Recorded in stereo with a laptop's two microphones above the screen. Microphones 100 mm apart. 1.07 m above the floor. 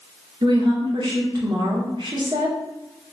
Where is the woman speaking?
45° right (ahead or behind), 1.1 m.